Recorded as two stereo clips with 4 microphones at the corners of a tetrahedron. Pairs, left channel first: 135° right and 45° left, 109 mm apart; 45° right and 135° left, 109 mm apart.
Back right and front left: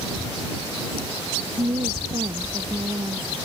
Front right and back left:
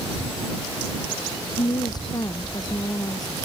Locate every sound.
1.6 s a woman speaking: 5° left